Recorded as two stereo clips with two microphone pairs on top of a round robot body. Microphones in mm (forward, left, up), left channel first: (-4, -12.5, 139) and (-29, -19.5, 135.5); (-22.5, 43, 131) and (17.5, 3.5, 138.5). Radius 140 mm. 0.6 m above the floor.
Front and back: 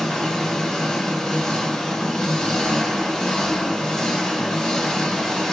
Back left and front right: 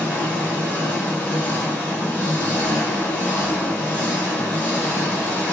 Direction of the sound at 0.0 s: 80° left.